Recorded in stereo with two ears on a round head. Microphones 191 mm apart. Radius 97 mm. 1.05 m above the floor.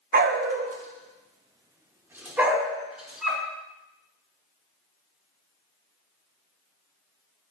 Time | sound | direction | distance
0.1 | a dog barking | 40° right (ahead or behind) | 0.7 m